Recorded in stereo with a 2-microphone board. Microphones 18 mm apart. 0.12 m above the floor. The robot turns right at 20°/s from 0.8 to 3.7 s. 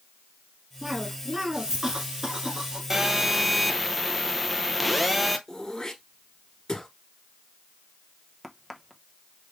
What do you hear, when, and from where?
0.8 s a cough: 150° right, 1.3 m; by 2.8 s 110° right, 1.3 m
2.9 s a phone buzzing: 15° right (ahead or behind), 0.6 m; by 5.4 s centre (ahead or behind), 0.6 m
5.5 s throat clearing: 35° left (ahead or behind), 1.5 m
8.4 s a crack: 5° left (ahead or behind), 0.8 m